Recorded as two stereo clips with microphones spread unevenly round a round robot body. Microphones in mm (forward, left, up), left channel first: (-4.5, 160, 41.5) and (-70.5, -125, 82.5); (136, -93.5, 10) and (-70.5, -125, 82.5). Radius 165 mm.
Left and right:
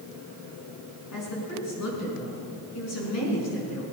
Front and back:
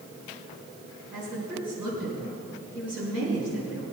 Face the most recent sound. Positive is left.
turn(degrees=110)